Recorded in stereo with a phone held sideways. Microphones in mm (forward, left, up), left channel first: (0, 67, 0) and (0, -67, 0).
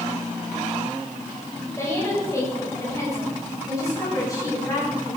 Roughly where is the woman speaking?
Left.